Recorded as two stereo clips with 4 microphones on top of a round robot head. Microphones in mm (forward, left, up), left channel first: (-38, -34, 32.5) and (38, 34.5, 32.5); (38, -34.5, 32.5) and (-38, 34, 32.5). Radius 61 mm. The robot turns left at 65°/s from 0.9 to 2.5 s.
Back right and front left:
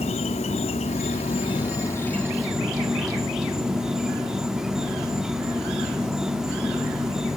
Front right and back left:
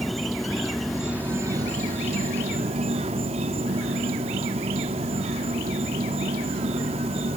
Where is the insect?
130° right, 1.0 m; by 7.4 s 125° left, 1.0 m.